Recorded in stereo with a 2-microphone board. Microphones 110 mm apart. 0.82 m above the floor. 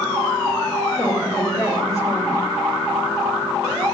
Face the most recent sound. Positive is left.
turn(degrees=30)  # may be behind; listen again after turning